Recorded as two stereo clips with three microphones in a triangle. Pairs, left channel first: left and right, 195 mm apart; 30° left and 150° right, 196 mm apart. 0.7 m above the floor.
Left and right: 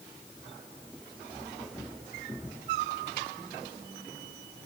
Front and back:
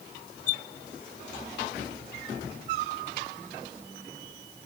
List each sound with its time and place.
Only background noise.